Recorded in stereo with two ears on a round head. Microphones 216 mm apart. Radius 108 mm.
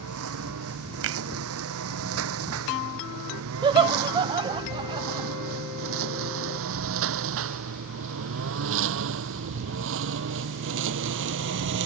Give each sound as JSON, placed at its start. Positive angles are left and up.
{"t": 0.0, "sound": "a lawn mower", "side_deg": -70}
{"t": 1.0, "sound": "a finger snap", "side_deg": -60}
{"t": 3.6, "sound": "laughter", "side_deg": -20}